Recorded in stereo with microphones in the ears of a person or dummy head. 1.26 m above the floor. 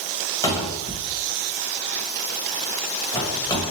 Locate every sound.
0.4 s a cupboard door: 15° left (ahead or behind), 1.0 m